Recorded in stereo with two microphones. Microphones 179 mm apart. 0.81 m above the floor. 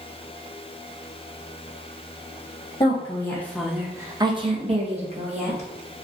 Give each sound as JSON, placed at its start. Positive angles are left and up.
{"t": 2.8, "sound": "a woman speaking", "side_deg": 30, "distance_m": 0.7}